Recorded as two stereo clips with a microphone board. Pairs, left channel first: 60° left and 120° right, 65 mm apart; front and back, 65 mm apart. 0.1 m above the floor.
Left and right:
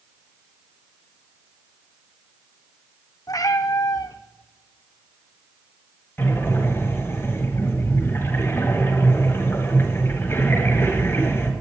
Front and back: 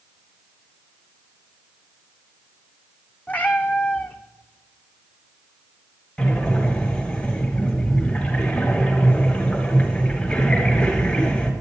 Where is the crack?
I don't hear a crack.